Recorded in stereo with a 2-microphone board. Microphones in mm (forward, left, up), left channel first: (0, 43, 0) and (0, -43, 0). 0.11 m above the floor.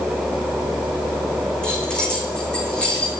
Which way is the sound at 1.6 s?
10° left (ahead or behind).